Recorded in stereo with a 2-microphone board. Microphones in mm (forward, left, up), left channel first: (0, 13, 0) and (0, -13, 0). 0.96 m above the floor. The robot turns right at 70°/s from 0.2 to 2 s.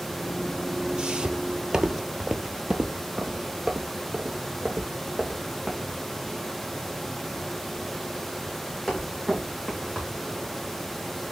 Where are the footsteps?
30° right (ahead or behind), 1.1 m; by 10.2 s centre (ahead or behind), 4.5 m.